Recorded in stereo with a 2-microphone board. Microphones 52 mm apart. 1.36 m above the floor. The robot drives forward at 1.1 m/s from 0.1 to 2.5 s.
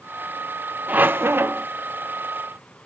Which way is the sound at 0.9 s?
30° right (ahead or behind).